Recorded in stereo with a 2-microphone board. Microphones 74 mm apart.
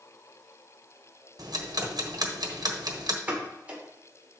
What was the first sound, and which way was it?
Ticking, 60° right (ahead or behind).